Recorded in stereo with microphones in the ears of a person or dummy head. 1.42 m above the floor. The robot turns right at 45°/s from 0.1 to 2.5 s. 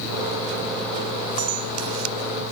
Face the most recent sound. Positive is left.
turn(degrees=-45)